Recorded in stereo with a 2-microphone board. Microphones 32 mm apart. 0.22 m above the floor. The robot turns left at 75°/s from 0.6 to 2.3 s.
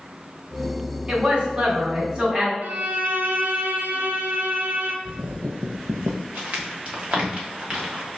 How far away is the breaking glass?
No breaking glass in this recording.